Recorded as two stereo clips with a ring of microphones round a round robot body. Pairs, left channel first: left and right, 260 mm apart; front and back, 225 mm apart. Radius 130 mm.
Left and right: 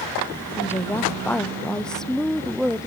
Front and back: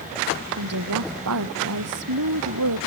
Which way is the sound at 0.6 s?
170° left.